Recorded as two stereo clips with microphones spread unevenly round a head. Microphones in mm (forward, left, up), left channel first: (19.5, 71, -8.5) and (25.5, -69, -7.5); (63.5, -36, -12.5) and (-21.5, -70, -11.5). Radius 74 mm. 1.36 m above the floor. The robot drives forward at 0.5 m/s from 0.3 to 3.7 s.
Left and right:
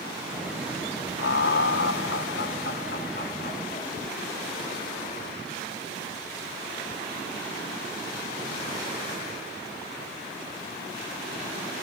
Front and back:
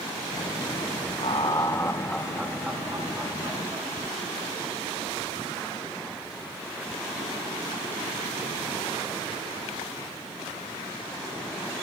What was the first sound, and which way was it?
Laughter, 80° left.